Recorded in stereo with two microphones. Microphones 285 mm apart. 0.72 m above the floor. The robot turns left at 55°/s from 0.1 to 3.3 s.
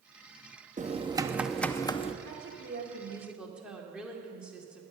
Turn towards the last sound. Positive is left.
turn(degrees=-175)